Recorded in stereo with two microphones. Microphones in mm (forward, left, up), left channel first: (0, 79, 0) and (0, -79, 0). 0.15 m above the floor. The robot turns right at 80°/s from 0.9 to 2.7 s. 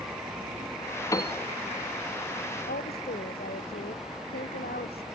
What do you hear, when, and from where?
1.1 s a piano: 20° left (ahead or behind); by 1.3 s 40° left (ahead or behind)
2.7 s a woman speaking: 80° left